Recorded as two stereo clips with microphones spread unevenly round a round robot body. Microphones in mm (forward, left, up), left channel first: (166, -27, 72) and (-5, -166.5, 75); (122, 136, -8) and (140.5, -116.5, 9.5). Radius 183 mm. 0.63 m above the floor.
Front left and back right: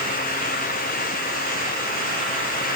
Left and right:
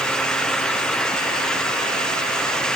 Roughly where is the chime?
I don't hear a chime.